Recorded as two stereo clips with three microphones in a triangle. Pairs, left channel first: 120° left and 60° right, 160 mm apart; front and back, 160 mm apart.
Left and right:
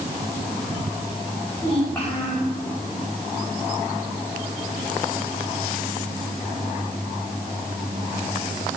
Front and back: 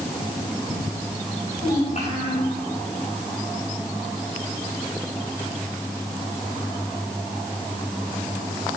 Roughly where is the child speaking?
Ahead left.